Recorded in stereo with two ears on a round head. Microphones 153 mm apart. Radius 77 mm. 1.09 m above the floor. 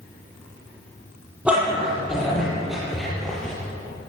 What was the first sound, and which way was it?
A dog barking, 5° right (ahead or behind).